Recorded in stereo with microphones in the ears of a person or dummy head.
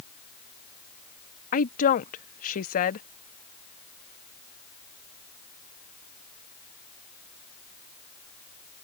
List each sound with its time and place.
1.5 s a woman speaking: 45° left (ahead or behind)